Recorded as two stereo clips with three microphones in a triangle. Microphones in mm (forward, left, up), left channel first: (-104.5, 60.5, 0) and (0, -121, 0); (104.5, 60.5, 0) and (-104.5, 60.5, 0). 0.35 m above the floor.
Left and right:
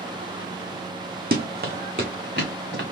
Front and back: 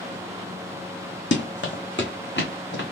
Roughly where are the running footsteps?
Ahead.